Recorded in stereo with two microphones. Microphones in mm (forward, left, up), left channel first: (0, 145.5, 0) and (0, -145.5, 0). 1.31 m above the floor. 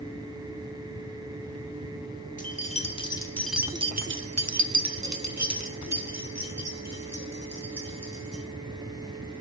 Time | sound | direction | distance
2.4 | keys jangling | 25° left (ahead or behind) | 1.5 m